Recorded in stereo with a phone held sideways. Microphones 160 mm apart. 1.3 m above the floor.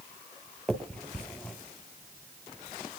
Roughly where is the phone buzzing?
No phone buzzing in this recording.